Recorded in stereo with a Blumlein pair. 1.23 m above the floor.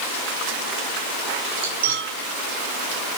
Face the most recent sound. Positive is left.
turn(degrees=-60)